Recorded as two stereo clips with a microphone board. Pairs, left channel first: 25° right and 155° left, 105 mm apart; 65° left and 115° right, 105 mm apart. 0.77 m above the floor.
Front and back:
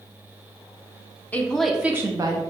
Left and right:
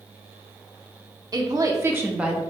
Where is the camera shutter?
I don't hear a camera shutter.